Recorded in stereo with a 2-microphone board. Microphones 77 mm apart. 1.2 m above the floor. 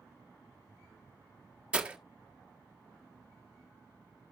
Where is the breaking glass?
15° right (ahead or behind), 1.3 m.